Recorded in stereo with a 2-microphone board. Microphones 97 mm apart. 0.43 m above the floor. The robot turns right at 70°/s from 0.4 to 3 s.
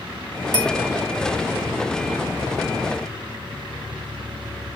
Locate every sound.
0.5 s a bell: 45° left (ahead or behind), 3 m; by 0.8 s 30° left (ahead or behind), 3 m